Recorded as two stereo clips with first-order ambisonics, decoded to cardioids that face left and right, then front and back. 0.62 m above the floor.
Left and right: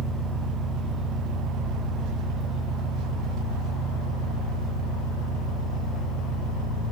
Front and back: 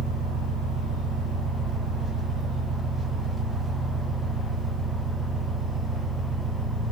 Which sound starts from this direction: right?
An engine running, at 0.0 s.